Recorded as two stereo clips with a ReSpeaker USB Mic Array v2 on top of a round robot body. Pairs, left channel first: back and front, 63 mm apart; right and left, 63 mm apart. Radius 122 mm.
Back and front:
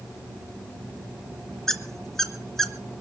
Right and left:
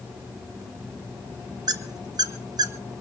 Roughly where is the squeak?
Left.